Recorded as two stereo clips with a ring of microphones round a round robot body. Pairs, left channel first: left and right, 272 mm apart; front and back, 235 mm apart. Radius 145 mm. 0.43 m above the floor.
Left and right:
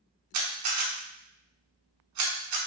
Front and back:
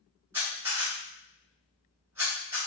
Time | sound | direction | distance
0.3 | a camera shutter | 100° right | 0.7 m